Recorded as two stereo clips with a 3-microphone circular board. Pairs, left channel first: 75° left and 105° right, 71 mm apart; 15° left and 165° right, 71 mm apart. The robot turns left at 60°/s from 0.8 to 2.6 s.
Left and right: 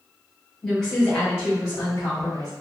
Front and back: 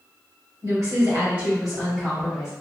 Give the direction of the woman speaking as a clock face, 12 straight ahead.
6 o'clock.